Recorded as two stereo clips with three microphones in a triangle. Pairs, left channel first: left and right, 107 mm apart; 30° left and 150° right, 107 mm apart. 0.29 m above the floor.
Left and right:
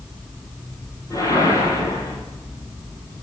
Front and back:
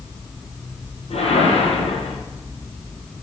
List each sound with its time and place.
1.1 s a whoosh: 30° left, 2 m